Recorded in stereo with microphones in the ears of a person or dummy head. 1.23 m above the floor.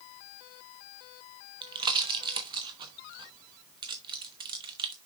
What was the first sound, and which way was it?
A pop, 25° right (ahead or behind).